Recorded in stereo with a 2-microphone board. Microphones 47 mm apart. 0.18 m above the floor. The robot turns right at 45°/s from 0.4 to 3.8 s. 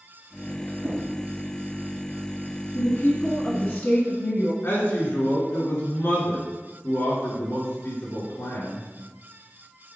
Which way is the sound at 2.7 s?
40° left.